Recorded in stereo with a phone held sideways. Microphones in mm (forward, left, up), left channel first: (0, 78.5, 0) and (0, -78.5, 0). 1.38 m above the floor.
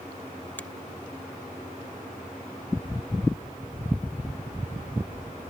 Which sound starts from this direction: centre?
A finger snap, at 0.6 s.